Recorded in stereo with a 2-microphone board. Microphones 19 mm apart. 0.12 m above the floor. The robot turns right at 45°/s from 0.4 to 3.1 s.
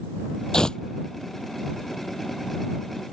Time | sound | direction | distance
0.5 | tearing paper | 45° left (ahead or behind) | ?